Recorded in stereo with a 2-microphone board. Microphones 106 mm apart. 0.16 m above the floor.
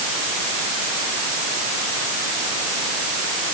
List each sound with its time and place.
Only background noise.